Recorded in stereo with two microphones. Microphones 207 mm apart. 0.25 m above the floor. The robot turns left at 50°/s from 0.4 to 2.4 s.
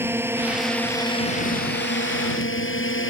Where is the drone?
170° right; by 3.1 s 90° left.